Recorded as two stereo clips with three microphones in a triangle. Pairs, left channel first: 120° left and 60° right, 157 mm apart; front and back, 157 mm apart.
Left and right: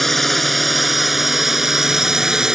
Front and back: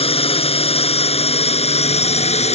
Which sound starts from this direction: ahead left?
A drone, at 0.0 s.